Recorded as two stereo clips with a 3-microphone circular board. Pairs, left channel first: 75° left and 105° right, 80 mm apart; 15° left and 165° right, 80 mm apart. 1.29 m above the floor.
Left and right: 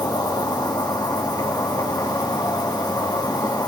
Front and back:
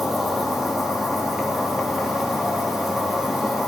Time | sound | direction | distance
0.0 | an insect | 110° left | 2.5 m